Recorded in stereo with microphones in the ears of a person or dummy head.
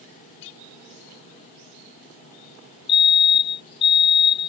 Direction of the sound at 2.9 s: 25° left (ahead or behind).